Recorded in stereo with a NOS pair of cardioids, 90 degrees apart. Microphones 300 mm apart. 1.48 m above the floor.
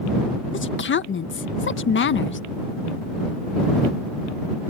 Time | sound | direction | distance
0.5 | a woman speaking | 40° left | ?